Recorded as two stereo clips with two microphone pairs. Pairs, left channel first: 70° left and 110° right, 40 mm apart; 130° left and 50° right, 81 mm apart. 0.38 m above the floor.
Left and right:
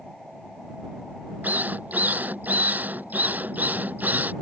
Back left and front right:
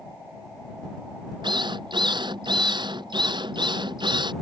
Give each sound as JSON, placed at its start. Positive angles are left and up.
{"t": 1.4, "sound": "a drill", "azimuth_deg": -65}